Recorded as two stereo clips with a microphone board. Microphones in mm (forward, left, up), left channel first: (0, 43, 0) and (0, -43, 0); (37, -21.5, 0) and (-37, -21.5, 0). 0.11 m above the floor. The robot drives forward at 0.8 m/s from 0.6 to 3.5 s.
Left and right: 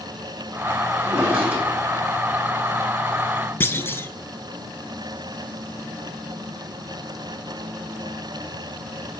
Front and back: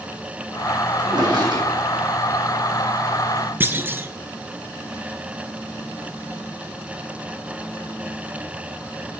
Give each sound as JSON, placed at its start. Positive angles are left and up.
{"t": 1.0, "sound": "a drawer", "azimuth_deg": -160, "distance_m": 3.5}
{"t": 3.6, "sound": "a clunk", "azimuth_deg": 140, "distance_m": 0.6}